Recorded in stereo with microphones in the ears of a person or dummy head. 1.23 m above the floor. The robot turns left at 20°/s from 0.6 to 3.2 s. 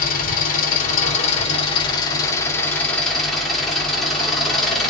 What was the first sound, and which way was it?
An engine running, 55° left.